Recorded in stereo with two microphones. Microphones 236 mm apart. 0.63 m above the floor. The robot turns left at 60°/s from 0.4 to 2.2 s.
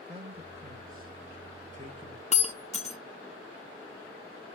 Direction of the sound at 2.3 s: 30° left (ahead or behind).